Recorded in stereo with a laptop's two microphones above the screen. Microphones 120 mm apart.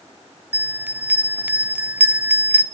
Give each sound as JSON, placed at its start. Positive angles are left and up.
{"t": 0.5, "sound": "a bell", "side_deg": -15, "distance_m": 0.5}